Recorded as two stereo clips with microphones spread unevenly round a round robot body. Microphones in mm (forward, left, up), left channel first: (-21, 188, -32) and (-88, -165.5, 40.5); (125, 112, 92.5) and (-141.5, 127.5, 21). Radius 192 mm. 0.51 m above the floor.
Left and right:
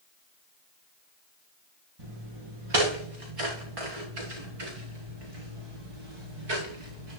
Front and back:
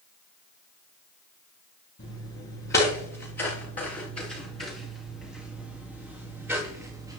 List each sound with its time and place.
2.0 s footsteps: 60° right, 4.5 m; by 7.2 s 100° right, 4 m